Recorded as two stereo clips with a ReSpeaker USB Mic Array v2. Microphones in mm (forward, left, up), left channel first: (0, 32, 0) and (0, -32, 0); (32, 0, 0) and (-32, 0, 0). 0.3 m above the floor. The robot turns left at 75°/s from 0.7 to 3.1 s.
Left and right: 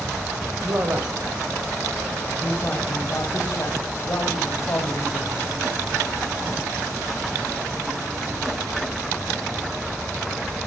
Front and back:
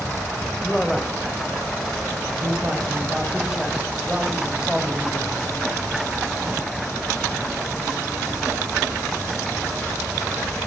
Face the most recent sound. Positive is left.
turn(degrees=100)